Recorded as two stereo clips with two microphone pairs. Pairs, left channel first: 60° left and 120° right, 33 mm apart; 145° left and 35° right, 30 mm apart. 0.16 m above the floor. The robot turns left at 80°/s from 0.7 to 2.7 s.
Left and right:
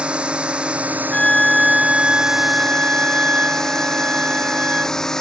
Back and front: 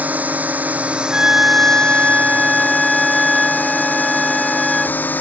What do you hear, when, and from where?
0.0 s a drone: 65° right; by 5.2 s 135° left
1.1 s a flute: 5° left; by 5.0 s 120° right